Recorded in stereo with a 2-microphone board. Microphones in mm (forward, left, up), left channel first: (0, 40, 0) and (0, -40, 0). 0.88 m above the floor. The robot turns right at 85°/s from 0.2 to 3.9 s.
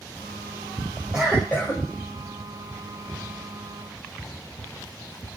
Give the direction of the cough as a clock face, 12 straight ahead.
12 o'clock.